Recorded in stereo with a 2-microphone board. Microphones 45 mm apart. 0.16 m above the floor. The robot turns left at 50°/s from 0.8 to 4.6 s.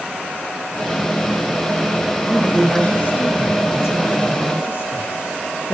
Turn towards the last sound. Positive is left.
turn(degrees=55)